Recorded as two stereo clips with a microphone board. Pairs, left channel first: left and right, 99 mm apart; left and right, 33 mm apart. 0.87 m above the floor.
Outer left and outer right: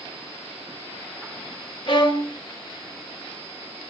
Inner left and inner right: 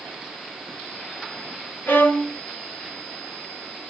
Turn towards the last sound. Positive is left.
turn(degrees=55)  # may be behind; listen again after turning